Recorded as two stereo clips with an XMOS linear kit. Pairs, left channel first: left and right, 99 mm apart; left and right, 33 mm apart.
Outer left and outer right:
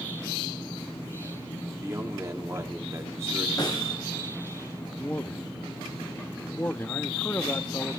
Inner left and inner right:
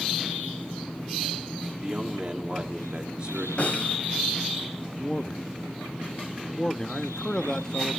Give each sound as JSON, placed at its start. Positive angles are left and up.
{"t": 1.8, "sound": "a man speaking", "side_deg": -30, "distance_m": 1.8}
{"t": 3.6, "sound": "a snare drum", "side_deg": 40, "distance_m": 4.0}
{"t": 5.0, "sound": "a man speaking", "side_deg": 20, "distance_m": 0.7}